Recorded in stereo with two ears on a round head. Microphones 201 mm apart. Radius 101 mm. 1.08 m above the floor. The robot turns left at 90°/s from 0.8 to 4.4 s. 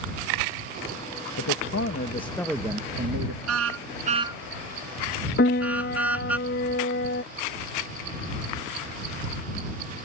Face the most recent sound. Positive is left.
turn(degrees=45)  # may be behind; listen again after turning